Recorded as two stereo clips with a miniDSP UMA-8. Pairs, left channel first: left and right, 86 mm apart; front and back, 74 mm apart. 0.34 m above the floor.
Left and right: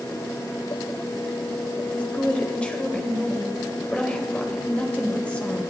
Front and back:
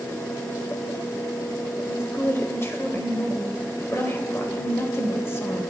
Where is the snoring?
No snoring in this recording.